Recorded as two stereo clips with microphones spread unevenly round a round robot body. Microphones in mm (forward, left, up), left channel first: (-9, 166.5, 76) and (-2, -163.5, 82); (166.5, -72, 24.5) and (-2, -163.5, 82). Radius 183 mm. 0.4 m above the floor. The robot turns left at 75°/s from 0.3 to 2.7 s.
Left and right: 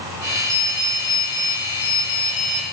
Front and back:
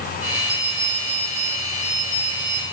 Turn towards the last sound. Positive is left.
turn(degrees=40)